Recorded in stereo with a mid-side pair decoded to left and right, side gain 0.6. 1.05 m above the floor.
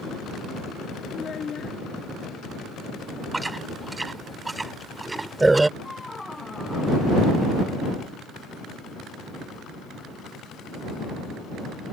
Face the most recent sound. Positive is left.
turn(degrees=15)